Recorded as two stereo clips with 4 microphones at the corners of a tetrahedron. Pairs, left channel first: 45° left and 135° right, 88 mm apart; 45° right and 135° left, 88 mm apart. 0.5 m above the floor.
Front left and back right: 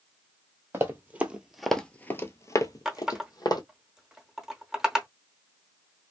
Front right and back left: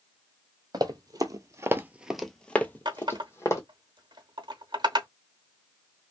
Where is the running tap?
140° left, 0.8 m.